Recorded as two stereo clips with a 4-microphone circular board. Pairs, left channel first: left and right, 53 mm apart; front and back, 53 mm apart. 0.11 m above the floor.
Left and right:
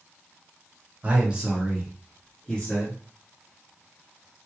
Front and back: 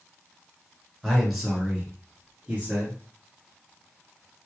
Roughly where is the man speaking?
Right.